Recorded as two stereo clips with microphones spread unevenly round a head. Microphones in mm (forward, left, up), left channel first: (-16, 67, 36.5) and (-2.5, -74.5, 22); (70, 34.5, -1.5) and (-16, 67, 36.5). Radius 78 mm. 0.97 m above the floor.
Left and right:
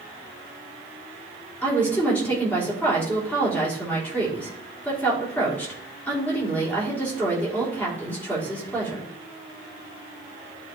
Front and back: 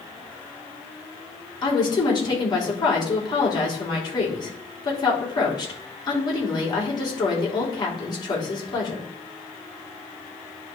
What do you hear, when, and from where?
1.6 s a woman speaking: 15° left, 3.5 m